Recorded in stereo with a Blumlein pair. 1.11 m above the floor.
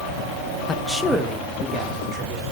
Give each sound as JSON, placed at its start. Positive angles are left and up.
{"t": 0.7, "sound": "a man speaking", "azimuth_deg": 15, "distance_m": 0.7}